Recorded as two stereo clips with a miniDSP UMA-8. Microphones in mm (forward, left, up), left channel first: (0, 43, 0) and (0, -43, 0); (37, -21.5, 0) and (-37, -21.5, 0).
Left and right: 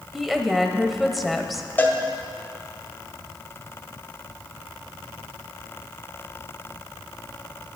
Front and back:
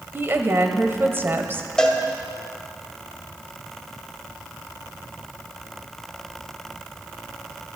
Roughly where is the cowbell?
Ahead left.